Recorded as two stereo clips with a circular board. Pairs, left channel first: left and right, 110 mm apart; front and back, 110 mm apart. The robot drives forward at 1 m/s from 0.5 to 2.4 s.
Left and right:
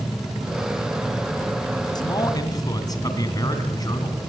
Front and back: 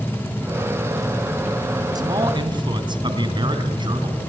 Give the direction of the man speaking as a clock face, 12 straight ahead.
8 o'clock.